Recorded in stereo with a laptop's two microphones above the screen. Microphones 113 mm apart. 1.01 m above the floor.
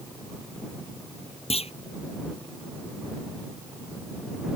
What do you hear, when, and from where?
1.5 s a clunk: 70° left (ahead or behind)